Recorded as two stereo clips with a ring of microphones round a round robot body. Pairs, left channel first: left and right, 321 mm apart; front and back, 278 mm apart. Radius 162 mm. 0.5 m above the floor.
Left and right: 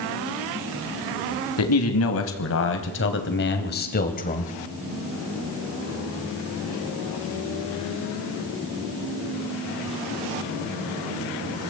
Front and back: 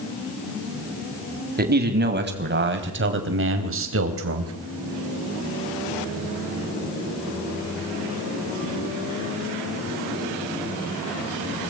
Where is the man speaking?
130° left, 4.5 m; by 4.5 s 155° left, 3.5 m.